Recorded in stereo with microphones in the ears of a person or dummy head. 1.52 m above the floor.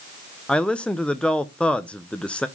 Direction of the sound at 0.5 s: 5° left (ahead or behind).